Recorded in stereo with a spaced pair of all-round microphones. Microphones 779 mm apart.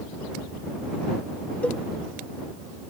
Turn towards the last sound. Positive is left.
turn(degrees=0)  # may be behind; listen again after turning